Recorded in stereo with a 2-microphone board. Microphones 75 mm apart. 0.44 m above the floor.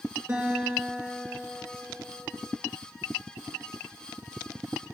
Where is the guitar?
35° right (ahead or behind), 3 m.